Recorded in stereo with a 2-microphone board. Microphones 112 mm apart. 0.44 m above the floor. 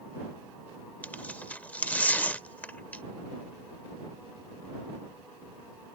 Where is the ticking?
I don't hear ticking.